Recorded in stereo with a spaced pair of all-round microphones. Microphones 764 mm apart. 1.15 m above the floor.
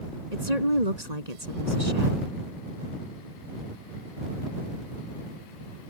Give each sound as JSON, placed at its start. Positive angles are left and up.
{"t": 0.3, "sound": "a woman speaking", "side_deg": -55}